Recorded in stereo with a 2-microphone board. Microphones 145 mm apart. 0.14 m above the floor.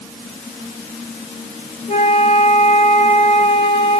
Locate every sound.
1.9 s a flute: 50° left (ahead or behind), 1.5 m